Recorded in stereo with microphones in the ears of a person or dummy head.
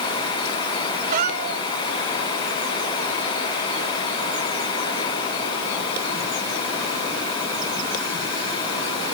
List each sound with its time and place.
1.1 s a cat meowing: 50° right (ahead or behind)